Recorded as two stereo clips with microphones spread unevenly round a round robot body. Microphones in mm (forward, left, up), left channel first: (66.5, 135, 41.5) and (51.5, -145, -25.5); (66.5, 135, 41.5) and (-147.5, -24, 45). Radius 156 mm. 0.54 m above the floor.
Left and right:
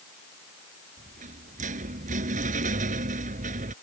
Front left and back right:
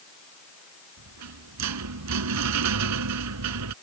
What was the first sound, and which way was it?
A rattle, 165° right.